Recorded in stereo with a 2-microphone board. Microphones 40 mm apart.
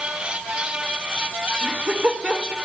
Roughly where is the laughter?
Right.